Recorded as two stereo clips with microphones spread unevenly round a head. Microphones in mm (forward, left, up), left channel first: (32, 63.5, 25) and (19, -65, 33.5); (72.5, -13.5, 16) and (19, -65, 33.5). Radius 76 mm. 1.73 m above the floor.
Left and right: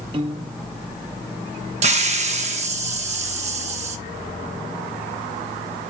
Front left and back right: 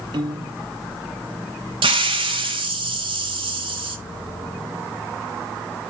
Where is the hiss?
140° right, 0.9 m.